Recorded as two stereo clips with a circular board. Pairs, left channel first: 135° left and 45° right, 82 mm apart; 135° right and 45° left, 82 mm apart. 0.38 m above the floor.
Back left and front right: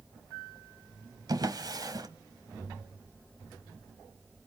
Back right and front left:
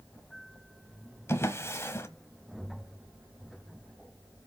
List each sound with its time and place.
1.3 s a drawer: 75° right, 1.1 m